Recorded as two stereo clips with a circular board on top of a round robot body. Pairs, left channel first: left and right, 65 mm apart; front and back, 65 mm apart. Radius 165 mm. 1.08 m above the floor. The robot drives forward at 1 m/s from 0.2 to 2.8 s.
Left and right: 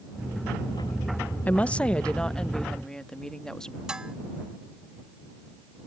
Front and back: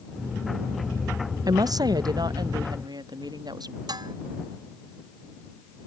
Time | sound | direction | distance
1.5 | a woman speaking | 155° left | ?
3.9 | dishes clattering | 170° right | ?